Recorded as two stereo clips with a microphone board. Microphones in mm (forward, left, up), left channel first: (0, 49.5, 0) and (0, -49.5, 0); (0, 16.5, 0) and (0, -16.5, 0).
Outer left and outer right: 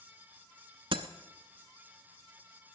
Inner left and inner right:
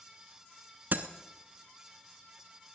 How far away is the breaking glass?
About 0.9 m.